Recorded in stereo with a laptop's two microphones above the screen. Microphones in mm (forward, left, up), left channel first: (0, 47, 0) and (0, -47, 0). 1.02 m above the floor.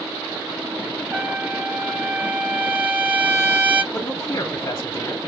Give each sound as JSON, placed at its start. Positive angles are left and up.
{"t": 1.1, "sound": "a trumpet", "side_deg": -25, "distance_m": 1.0}
{"t": 3.9, "sound": "a man speaking", "side_deg": 55, "distance_m": 1.6}